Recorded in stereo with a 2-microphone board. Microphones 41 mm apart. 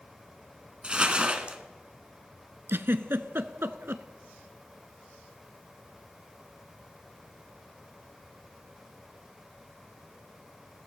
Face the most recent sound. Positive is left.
turn(degrees=-70)  # may be behind; listen again after turning